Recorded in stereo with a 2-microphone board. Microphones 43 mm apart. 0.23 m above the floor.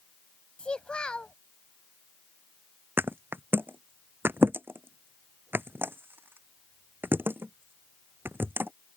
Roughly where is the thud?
Right.